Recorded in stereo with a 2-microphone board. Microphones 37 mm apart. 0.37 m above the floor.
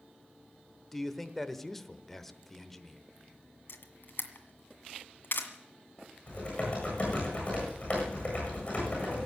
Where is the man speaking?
5° left (ahead or behind), 0.9 m.